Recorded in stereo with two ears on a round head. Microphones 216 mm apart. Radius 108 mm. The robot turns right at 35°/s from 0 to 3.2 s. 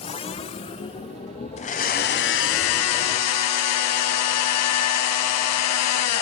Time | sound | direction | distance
1.6 | a blender | 30° left | 1.0 m